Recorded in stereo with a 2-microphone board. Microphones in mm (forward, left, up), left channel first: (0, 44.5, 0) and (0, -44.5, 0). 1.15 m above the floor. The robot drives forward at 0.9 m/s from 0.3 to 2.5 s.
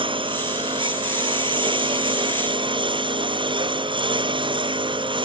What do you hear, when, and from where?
0.0 s a lawn mower: 70° right (ahead or behind); by 5.3 s 65° right (ahead or behind)